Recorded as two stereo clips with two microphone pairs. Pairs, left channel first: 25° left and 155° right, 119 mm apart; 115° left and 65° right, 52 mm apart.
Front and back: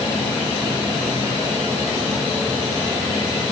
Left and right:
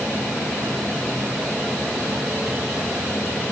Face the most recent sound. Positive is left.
No sound to turn to.